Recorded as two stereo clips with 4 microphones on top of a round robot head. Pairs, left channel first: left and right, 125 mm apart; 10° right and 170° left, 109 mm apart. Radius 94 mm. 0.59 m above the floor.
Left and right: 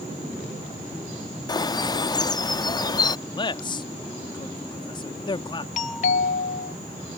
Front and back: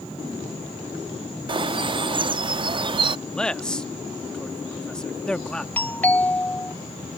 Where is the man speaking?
70° left.